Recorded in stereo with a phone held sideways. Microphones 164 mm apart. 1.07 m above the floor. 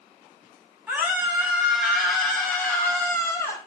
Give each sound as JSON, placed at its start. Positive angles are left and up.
{"t": 0.9, "sound": "a scream", "side_deg": -10, "distance_m": 6.0}